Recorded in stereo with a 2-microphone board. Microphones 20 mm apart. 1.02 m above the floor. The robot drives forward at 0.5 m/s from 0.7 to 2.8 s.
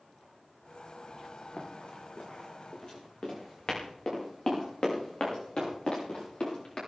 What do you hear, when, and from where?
1.6 s running footsteps: 65° left (ahead or behind), 4 m; by 6.8 s 50° left (ahead or behind), 7.5 m